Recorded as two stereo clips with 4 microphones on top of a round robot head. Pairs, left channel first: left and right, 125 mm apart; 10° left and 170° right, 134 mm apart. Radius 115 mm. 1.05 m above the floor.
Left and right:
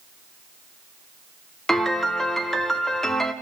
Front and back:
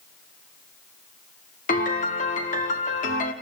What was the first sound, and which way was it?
A piano, 5° left.